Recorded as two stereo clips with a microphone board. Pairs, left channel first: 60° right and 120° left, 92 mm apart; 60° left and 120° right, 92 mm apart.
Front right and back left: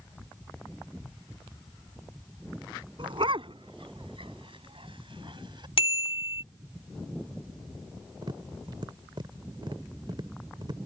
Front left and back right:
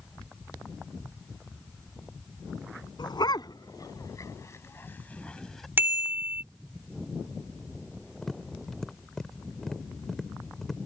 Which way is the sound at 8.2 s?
145° left.